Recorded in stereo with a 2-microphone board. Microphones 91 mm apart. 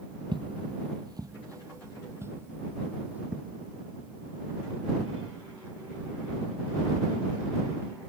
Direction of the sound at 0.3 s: 60° right (ahead or behind).